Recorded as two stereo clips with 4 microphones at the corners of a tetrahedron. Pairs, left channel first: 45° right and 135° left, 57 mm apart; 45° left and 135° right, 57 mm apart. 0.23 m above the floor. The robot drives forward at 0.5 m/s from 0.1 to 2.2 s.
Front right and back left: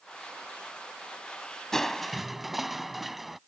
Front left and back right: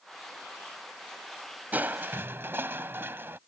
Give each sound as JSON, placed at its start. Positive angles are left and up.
{"t": 1.7, "sound": "crushing", "azimuth_deg": -115}